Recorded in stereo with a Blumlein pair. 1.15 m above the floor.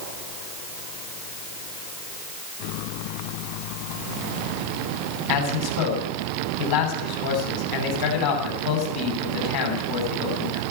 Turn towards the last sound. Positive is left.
turn(degrees=50)